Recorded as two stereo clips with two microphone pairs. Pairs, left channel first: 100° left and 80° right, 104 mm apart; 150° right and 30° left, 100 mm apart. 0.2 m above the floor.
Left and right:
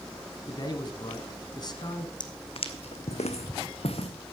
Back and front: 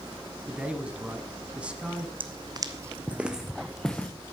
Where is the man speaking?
105° left, 1.4 m.